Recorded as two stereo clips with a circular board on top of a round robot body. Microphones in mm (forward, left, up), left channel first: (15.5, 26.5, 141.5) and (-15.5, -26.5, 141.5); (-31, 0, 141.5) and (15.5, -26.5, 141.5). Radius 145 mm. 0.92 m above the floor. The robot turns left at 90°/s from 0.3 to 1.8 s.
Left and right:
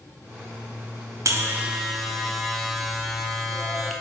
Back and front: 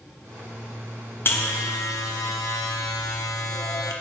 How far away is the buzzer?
About 1.1 m.